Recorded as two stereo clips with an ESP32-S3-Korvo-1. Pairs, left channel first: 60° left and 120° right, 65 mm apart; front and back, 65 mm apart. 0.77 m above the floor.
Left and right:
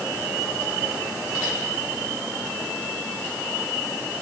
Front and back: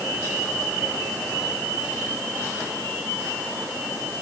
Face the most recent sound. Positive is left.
No sound to turn to.